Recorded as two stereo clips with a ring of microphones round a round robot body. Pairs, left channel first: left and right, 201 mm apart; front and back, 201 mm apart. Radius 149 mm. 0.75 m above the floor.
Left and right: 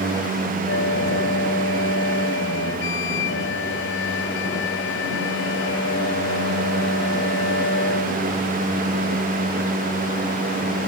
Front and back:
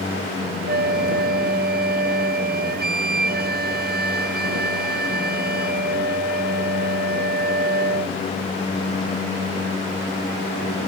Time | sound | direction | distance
0.7 | a flute | 140° left | ?